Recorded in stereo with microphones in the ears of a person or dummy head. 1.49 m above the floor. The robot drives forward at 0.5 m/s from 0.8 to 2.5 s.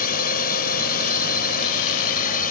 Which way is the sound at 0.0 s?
40° left (ahead or behind).